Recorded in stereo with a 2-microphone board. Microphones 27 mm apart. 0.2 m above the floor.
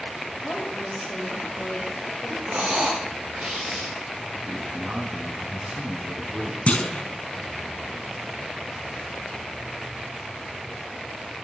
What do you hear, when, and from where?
0.4 s a woman speaking: 45° left (ahead or behind), 6 m
2.5 s breathing: 75° right (ahead or behind), 9 m
4.5 s a man speaking: 35° right (ahead or behind), 2 m
6.7 s a clunk: 50° left (ahead or behind), 1.1 m